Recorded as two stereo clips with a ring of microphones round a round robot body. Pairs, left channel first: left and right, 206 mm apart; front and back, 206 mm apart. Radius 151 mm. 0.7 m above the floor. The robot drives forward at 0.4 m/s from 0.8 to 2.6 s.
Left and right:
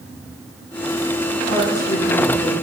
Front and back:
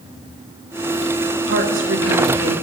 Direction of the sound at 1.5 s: 165° left.